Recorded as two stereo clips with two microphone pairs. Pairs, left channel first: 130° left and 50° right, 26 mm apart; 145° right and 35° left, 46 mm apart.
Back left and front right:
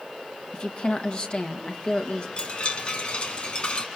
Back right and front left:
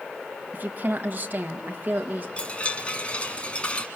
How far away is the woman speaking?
About 1.9 m.